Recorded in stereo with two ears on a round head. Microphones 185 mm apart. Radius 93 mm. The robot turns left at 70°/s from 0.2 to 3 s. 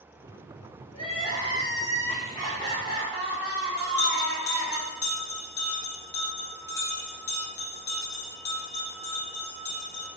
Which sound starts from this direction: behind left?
Crying, at 0.9 s.